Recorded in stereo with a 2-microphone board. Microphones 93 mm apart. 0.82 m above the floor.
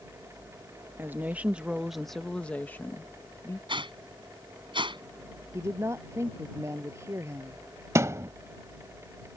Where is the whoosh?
60° right (ahead or behind).